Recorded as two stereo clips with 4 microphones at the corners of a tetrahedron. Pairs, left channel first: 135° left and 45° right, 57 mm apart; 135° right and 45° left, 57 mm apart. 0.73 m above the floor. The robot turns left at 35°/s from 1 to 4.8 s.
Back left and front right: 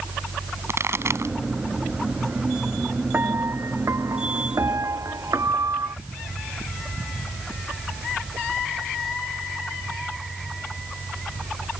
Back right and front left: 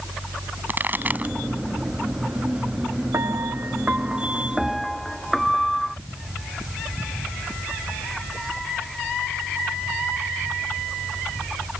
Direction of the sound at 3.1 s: 10° left.